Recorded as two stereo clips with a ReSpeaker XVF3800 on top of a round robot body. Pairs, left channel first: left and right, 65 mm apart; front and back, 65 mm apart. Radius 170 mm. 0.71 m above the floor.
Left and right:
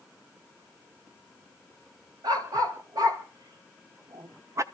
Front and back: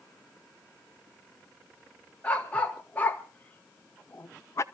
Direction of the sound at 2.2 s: 70° right.